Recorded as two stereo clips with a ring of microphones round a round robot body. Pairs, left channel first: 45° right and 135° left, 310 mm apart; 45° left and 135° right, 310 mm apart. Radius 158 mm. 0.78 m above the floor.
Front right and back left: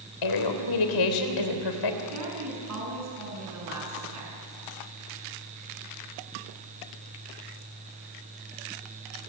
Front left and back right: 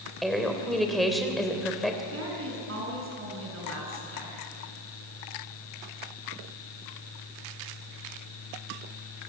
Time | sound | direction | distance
0.2 | a woman speaking | 45° right | 3.5 m
2.1 | a woman speaking | 175° left | 7.5 m